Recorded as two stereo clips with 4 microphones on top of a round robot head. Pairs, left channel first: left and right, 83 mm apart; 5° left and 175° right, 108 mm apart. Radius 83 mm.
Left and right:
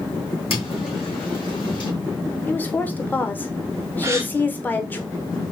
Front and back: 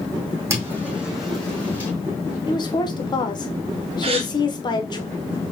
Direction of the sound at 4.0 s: 145° right.